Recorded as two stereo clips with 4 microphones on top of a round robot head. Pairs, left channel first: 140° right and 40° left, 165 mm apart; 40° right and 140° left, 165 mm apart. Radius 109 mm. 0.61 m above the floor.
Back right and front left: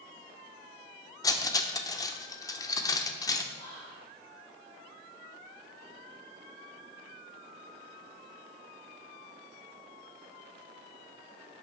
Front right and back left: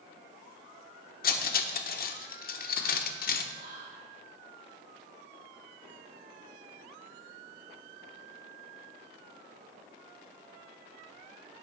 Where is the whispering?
160° left, 3.5 m.